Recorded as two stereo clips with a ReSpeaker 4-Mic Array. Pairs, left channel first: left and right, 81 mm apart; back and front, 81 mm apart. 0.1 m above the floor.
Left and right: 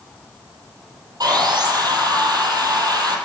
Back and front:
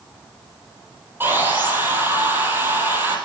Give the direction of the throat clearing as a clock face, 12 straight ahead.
I don't hear throat clearing.